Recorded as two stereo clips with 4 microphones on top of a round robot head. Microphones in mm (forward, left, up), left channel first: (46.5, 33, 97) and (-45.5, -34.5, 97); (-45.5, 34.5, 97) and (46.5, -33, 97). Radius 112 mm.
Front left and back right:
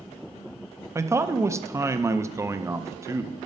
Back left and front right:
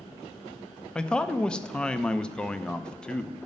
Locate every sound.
0.9 s a man speaking: 145° right, 0.7 m